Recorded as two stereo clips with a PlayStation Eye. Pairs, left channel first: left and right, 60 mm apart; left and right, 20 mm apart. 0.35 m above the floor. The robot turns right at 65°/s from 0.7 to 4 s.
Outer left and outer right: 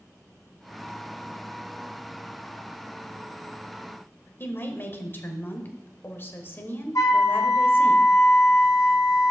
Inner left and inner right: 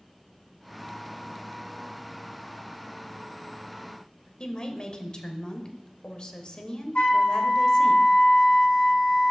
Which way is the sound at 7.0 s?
65° left (ahead or behind).